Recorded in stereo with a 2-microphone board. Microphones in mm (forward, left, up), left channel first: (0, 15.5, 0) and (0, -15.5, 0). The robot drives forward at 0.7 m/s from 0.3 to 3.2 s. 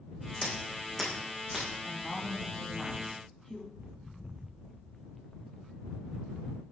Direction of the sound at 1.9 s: 20° left (ahead or behind).